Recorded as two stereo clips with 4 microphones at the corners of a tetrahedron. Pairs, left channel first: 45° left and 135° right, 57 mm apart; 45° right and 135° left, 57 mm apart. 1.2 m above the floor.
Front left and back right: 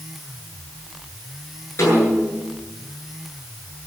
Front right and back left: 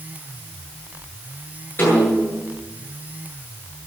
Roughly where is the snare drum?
Ahead.